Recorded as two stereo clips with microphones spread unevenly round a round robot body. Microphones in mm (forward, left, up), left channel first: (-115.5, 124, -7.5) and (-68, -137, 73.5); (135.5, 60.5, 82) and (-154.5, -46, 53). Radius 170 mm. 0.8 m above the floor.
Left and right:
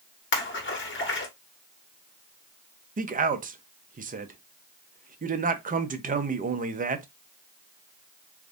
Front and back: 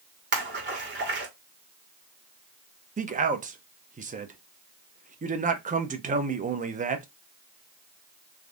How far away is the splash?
About 1.3 m.